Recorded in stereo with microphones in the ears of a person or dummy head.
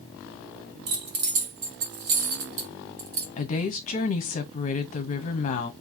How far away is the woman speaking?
About 0.8 m.